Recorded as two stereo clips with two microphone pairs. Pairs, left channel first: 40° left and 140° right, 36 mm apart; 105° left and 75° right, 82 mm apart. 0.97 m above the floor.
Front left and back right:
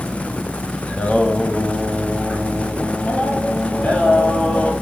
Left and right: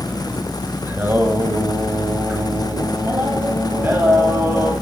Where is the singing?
10° right, 5.5 m.